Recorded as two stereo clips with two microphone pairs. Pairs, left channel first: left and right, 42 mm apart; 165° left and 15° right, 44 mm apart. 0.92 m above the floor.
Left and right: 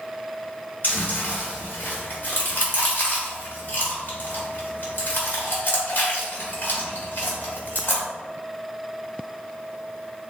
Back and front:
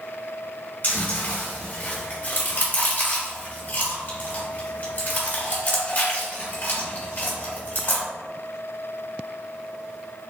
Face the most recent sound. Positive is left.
turn(degrees=120)